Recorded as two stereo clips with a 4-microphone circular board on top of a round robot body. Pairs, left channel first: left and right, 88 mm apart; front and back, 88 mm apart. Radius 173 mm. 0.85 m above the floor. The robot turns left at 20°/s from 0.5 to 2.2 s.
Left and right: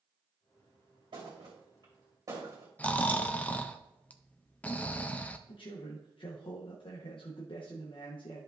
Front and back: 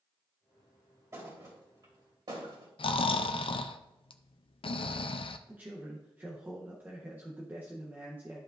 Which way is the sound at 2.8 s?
15° left.